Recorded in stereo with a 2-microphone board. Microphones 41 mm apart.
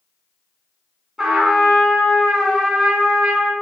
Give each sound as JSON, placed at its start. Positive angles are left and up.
{"t": 1.2, "sound": "a trumpet", "side_deg": -10, "distance_m": 1.2}